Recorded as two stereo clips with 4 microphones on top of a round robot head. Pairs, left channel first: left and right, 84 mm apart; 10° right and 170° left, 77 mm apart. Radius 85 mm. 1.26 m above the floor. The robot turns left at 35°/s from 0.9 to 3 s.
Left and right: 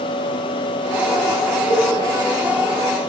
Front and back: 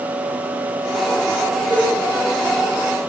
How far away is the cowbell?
About 1.2 m.